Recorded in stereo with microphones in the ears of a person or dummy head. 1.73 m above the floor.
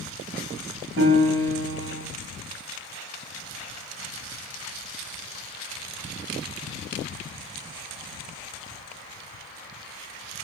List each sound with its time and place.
1.0 s a piano: 65° right (ahead or behind), 3.5 m